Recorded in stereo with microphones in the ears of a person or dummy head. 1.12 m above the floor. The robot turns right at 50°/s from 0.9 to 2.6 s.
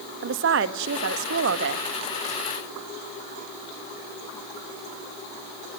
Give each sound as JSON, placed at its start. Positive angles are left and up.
{"t": 0.2, "sound": "a woman speaking", "azimuth_deg": -115, "distance_m": 1.4}